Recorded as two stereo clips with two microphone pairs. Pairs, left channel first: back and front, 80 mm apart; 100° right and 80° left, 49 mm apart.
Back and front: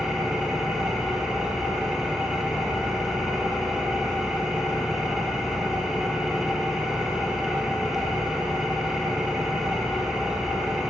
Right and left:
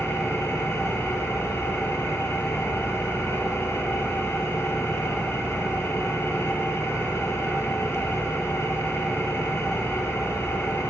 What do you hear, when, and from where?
0.0 s an engine running: 85° right, 2 m